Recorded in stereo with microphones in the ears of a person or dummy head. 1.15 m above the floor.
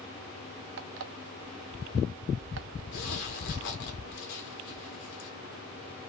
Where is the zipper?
50° left (ahead or behind), 1.1 m.